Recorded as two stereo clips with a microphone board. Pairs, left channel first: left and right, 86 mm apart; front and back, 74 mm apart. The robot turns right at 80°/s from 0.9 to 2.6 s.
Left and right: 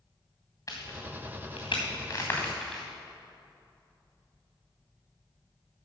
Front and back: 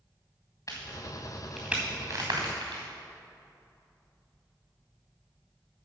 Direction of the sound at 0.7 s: 45° left.